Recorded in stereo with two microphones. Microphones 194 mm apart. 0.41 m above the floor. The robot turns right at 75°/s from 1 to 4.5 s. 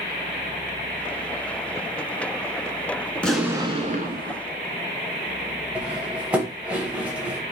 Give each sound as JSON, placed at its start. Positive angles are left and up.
{"t": 3.1, "sound": "an explosion", "azimuth_deg": 165, "distance_m": 0.8}
{"t": 5.8, "sound": "cutlery clinking", "side_deg": -5, "distance_m": 1.0}